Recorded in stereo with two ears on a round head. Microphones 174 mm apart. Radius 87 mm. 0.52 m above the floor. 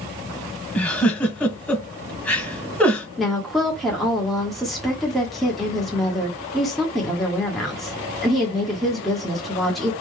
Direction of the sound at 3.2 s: Centre (ahead or behind).